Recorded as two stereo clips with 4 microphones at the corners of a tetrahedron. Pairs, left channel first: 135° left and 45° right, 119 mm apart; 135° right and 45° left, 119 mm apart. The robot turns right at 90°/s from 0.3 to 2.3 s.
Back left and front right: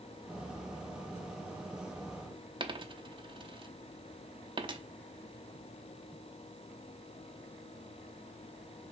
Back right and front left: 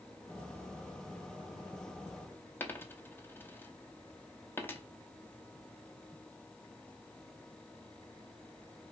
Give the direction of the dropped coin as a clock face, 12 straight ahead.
2 o'clock.